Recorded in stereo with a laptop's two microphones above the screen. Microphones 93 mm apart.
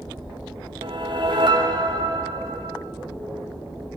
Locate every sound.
0.8 s a whoosh: 60° right (ahead or behind), 2.5 m